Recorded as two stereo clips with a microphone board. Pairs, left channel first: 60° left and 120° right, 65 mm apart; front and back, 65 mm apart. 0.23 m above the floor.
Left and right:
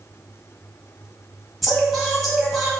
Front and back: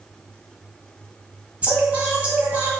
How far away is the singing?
About 1.5 m.